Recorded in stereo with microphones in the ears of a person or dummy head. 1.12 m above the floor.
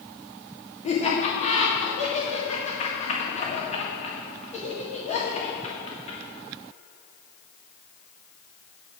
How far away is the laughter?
About 1.6 m.